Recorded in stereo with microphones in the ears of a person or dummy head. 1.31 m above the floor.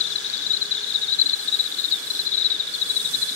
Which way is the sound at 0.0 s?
70° left (ahead or behind).